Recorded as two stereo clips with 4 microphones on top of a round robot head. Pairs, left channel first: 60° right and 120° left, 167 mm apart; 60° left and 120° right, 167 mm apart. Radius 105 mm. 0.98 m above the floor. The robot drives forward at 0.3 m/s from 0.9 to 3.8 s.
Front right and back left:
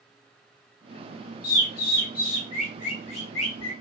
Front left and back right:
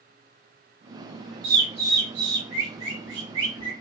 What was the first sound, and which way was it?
A bird, 85° right.